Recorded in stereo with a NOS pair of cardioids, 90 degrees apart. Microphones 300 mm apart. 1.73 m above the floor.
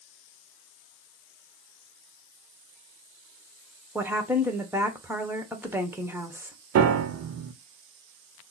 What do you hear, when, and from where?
4.0 s a woman speaking: 5° right, 1.2 m
6.8 s a piano: 60° right, 0.7 m